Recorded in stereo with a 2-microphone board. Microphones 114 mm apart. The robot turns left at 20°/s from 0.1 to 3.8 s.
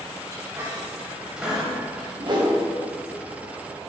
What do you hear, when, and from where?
0.3 s a squeak: 25° right (ahead or behind), 1.5 m; by 2.1 s 5° left (ahead or behind), 1.5 m
2.2 s a whoosh: 45° right (ahead or behind), 1.2 m; by 2.5 s 40° right (ahead or behind), 1.2 m